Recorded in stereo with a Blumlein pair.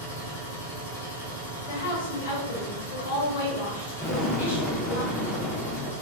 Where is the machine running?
55° left, 1.4 m.